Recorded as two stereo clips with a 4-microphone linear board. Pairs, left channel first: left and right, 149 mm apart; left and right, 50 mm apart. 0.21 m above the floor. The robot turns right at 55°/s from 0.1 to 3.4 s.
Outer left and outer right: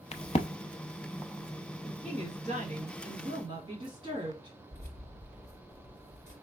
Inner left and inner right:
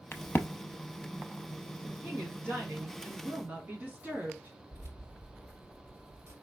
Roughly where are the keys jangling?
Right.